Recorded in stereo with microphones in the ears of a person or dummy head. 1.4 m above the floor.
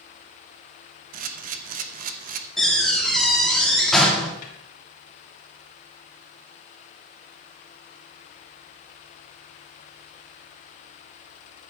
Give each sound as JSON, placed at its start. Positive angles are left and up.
{"t": 1.1, "sound": "a camera shutter", "side_deg": -50, "distance_m": 1.0}
{"t": 2.6, "sound": "a door slam", "side_deg": 5, "distance_m": 1.9}
{"t": 4.4, "sound": "a snare drum", "side_deg": 50, "distance_m": 2.5}